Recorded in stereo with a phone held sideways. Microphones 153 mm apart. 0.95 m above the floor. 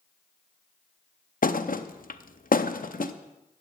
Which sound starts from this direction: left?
A thud, at 1.4 s.